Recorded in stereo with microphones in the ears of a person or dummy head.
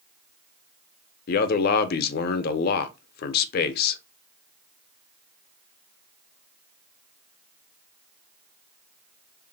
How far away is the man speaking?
About 0.5 m.